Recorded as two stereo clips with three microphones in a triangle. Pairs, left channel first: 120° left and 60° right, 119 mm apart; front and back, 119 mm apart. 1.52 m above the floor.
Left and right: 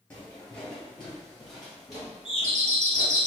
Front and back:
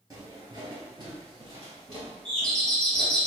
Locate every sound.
0.1 s footsteps: 175° right, 1.6 m; by 3.2 s 145° right, 3 m
2.2 s a doorbell: 85° right, 1.4 m